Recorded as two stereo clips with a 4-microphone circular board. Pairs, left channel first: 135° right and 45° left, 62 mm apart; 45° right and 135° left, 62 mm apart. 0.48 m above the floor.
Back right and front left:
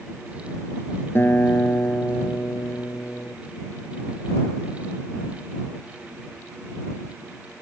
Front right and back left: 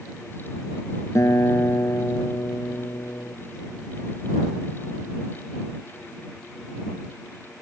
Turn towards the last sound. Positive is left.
turn(degrees=-80)